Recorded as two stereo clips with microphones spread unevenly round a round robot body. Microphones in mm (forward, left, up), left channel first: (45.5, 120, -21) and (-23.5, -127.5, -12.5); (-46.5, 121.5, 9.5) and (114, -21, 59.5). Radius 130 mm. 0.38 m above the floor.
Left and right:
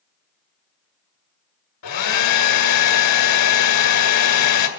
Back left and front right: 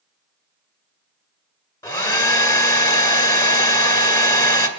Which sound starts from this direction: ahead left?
A hair dryer, at 1.8 s.